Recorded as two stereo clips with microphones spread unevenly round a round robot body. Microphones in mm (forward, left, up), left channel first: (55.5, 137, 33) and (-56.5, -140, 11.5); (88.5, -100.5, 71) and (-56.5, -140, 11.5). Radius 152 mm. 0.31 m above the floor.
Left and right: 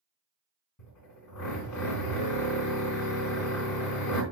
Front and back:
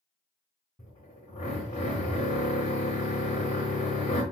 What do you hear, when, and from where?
0.8 s a drill: 90° left, 3.5 m